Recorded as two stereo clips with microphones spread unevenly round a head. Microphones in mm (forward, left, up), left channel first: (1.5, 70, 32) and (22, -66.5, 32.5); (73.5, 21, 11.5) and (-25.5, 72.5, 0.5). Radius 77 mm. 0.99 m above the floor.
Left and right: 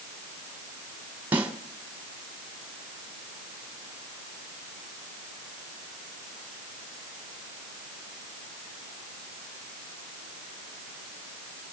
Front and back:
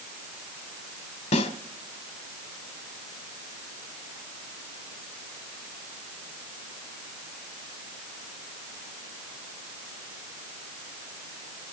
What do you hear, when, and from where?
1.3 s a snare drum: 5° right, 2 m